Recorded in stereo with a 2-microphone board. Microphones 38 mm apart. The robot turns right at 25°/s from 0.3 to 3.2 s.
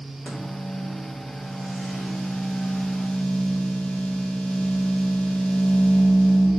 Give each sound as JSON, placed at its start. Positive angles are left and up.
{"t": 0.2, "sound": "a microwave", "azimuth_deg": 45, "distance_m": 3.0}